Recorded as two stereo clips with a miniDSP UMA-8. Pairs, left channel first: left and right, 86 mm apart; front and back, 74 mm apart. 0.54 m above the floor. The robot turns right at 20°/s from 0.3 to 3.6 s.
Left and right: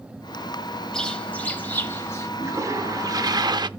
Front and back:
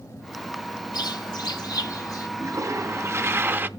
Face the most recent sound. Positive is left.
turn(degrees=-120)